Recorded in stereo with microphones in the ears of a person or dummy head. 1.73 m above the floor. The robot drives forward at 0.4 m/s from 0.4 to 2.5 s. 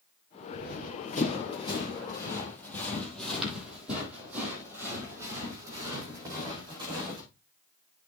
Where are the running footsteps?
45° left (ahead or behind), 2.5 m; by 7.2 s 25° right (ahead or behind), 5 m.